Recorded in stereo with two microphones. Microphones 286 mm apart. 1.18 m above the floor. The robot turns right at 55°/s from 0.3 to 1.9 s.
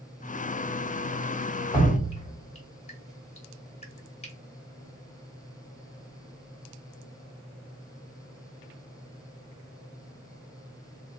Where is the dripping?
15° left (ahead or behind), 1.1 m; by 4.3 s 20° left (ahead or behind), 1.1 m.